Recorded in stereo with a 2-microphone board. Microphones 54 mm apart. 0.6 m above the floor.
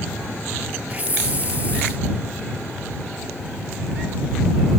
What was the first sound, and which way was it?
A hiss, 25° right (ahead or behind).